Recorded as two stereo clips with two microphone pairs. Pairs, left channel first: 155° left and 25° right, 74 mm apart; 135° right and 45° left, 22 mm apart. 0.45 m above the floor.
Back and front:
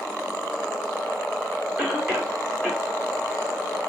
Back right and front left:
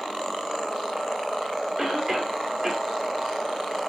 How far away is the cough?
About 1.3 m.